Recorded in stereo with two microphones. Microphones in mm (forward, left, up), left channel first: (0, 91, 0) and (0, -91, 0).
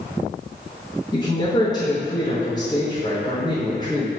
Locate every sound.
1.1 s a man speaking: 20° left (ahead or behind), 0.7 m